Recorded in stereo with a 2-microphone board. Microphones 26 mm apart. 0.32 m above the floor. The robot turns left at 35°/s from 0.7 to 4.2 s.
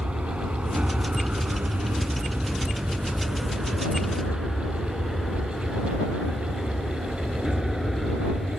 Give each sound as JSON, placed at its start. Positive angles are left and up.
{"t": 0.0, "sound": "an aircraft", "side_deg": -50}